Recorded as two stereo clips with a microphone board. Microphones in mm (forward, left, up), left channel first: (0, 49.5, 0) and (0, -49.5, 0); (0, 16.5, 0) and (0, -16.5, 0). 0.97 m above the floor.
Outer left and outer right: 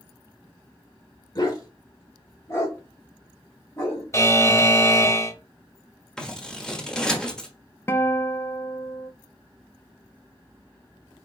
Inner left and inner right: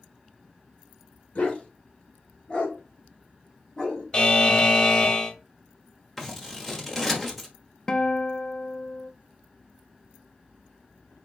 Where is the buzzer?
30° left (ahead or behind), 0.8 m.